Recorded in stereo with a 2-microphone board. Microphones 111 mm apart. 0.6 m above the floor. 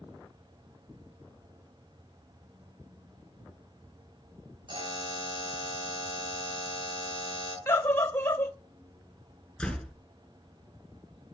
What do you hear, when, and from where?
4.7 s a buzzer: 50° right (ahead or behind), 7.5 m
7.7 s a scream: 25° left (ahead or behind), 1.5 m
9.6 s a door slam: 5° left (ahead or behind), 5.5 m